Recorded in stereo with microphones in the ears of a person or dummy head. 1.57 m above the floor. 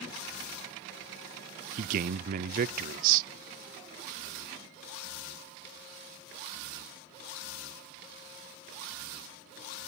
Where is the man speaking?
50° right (ahead or behind), 0.6 m.